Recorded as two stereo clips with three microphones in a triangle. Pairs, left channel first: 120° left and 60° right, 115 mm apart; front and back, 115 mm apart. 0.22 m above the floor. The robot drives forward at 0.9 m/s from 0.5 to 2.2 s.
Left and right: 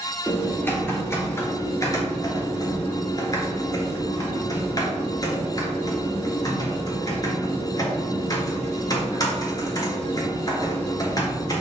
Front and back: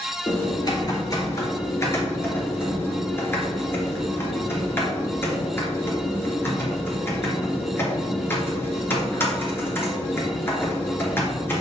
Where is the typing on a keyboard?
45° left, 4.5 m; by 11.6 s 65° left, 3.5 m.